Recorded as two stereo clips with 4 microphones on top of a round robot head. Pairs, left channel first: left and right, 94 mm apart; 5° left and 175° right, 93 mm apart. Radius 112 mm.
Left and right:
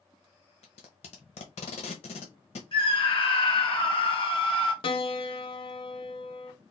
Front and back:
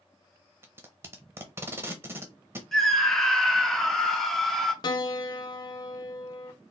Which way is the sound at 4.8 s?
55° left.